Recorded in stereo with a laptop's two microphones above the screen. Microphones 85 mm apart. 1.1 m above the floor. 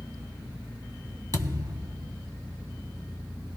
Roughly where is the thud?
Right.